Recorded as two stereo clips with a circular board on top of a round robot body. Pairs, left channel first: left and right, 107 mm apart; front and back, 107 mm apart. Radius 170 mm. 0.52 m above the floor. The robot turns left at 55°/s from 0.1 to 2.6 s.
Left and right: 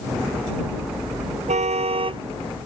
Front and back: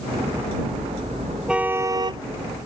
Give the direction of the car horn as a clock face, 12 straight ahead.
3 o'clock.